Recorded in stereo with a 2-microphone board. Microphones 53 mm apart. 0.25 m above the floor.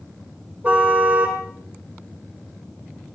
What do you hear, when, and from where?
0.6 s a car horn: 30° right (ahead or behind), 4.5 m